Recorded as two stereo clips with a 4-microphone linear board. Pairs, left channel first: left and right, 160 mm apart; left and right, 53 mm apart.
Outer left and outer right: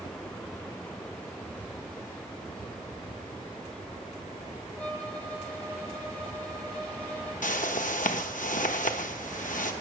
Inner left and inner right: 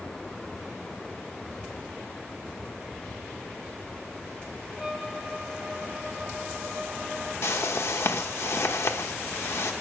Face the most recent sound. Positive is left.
turn(degrees=60)  # may be behind; listen again after turning